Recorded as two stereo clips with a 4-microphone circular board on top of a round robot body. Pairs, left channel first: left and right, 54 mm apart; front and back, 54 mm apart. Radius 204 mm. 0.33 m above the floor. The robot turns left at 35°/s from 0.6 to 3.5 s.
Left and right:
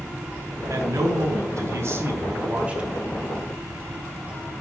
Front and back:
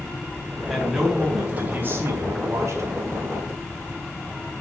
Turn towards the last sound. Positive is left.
turn(degrees=175)